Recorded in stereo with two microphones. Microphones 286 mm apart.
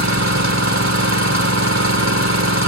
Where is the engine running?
65° right (ahead or behind), 3.5 m.